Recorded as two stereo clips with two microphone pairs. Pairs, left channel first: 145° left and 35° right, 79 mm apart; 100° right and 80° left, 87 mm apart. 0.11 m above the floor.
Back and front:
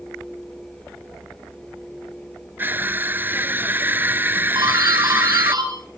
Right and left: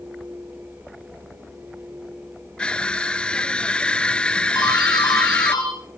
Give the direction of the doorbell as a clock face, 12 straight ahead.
2 o'clock.